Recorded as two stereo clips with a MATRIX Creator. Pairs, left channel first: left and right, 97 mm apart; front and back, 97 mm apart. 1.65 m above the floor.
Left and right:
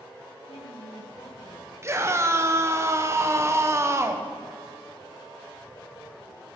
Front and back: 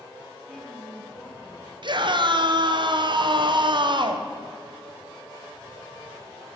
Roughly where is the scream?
Behind right.